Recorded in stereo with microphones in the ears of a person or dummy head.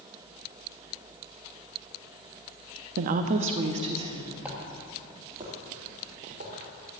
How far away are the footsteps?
About 2.5 m.